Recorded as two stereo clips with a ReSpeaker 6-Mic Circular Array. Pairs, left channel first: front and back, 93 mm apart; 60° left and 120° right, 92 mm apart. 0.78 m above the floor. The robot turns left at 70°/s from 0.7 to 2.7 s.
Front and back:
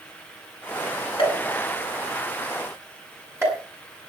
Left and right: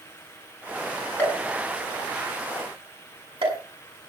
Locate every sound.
1.2 s a pop: 15° right, 7 m; by 3.6 s 120° right, 7 m